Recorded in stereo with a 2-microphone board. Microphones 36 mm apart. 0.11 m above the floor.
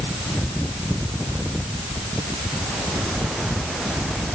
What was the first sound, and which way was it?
Only background noise.